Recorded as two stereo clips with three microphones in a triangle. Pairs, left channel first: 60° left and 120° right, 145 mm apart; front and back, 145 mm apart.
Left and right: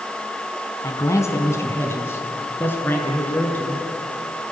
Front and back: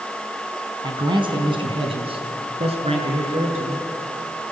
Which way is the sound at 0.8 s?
125° left.